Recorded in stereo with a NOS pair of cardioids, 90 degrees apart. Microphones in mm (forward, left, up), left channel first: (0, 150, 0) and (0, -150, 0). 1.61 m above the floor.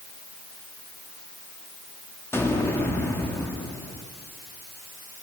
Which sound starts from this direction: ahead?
An explosion, at 2.3 s.